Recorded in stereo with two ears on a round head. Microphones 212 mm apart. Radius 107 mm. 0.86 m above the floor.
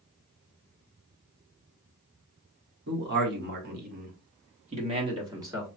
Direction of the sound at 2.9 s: 45° right (ahead or behind).